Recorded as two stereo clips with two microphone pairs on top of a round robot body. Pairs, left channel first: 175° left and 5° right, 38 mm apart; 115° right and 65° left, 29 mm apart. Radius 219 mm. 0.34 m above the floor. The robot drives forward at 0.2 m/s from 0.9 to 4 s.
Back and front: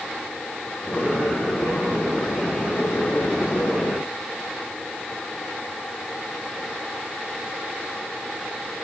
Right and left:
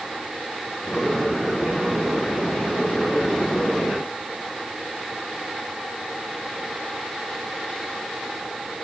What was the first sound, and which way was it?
Only background noise.